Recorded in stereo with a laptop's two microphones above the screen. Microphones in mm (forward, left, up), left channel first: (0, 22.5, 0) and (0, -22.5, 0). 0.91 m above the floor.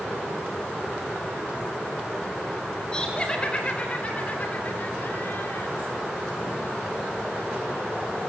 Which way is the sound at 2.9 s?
20° left (ahead or behind).